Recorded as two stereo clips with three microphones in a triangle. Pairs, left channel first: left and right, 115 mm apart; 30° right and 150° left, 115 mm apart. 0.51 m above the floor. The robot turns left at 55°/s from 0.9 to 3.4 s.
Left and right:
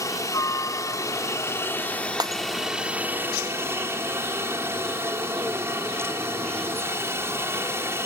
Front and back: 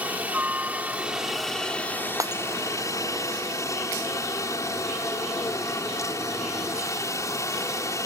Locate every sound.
0.0 s a helicopter: 90° left; by 8.1 s 50° right
2.2 s breaking glass: 145° right; by 2.4 s 160° right